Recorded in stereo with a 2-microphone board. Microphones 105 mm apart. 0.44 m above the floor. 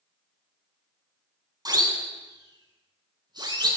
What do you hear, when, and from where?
1.6 s a siren: 40° right (ahead or behind), 6 m; by 3.7 s 45° right (ahead or behind), 8 m